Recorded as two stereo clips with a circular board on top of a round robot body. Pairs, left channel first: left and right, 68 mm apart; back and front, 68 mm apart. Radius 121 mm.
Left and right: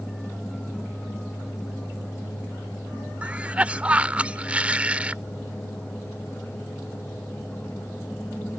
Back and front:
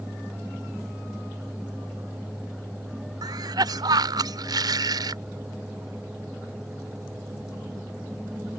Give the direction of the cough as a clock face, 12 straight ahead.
1 o'clock.